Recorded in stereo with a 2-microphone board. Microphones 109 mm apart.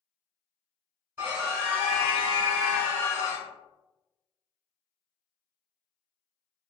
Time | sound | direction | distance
1.2 | a scream | 20° right (ahead or behind) | 1.4 m